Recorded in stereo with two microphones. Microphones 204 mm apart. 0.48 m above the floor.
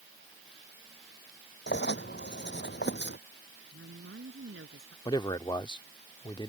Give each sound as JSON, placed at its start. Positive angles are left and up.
{"t": 1.7, "sound": "writing", "side_deg": 60}
{"t": 3.7, "sound": "a woman speaking", "side_deg": -75}
{"t": 5.0, "sound": "a man speaking", "side_deg": 20}